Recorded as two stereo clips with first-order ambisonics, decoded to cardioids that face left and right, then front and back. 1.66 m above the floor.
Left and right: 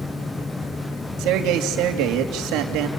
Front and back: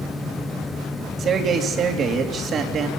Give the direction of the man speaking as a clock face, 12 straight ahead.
4 o'clock.